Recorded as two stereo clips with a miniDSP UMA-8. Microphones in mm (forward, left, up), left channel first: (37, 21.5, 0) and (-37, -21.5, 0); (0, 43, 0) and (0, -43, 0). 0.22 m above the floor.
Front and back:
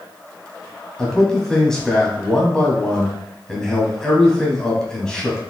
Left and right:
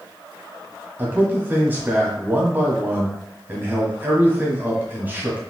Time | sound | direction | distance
1.0 | a man speaking | 50° right | 1.3 m